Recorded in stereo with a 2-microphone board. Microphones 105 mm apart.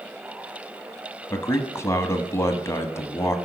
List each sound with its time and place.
1.3 s a man speaking: 25° left (ahead or behind), 1.1 m